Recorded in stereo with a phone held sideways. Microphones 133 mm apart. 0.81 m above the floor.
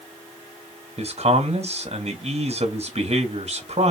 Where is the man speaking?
55° right (ahead or behind), 1.2 m.